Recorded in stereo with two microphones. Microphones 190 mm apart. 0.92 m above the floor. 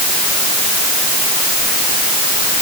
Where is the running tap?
I don't hear a running tap.